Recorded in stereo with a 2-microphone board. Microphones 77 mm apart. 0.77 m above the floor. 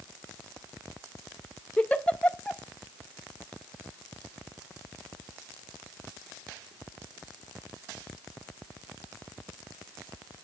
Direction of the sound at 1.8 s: 15° left (ahead or behind).